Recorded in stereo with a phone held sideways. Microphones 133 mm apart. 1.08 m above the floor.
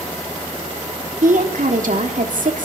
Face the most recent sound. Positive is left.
turn(degrees=-80)